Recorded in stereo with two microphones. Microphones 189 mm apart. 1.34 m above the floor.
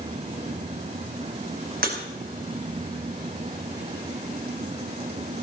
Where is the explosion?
No explosion in this recording.